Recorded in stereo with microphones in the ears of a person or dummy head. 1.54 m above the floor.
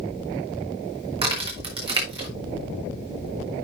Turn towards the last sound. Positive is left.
turn(degrees=-30)  # may be behind; listen again after turning